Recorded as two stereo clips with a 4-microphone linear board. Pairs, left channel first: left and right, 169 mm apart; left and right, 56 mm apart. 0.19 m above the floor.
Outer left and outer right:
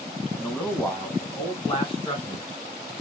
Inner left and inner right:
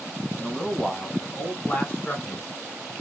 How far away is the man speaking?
About 1.5 m.